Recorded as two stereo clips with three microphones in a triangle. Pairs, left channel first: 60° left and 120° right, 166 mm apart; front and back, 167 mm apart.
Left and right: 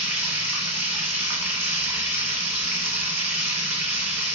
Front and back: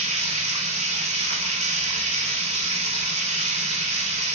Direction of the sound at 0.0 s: 165° left.